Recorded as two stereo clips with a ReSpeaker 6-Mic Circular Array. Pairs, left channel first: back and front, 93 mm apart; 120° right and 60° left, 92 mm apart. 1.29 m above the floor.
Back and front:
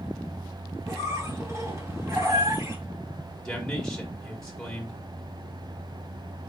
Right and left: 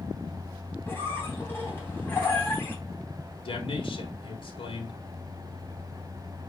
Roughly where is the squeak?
Ahead right.